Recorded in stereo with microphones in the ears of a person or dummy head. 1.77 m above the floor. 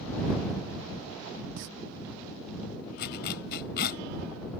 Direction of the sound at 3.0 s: 60° left (ahead or behind).